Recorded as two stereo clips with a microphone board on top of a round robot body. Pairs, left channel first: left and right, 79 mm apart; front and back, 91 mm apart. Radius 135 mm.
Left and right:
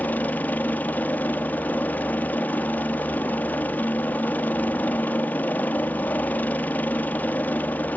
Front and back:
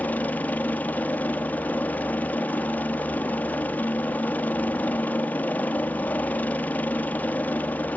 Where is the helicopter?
50° left.